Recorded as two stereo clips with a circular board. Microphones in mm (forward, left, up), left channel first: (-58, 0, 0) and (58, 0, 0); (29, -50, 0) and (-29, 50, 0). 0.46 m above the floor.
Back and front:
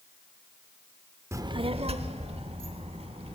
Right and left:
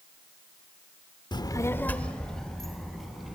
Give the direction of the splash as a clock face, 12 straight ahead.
No splash in this recording.